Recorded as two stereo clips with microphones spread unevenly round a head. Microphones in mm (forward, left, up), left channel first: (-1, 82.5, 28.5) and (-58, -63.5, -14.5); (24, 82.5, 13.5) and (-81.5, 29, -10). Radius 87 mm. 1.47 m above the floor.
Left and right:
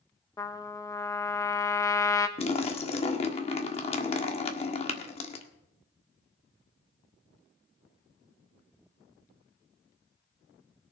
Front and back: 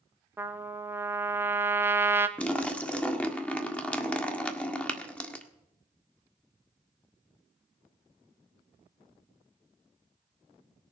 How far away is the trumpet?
About 1.3 m.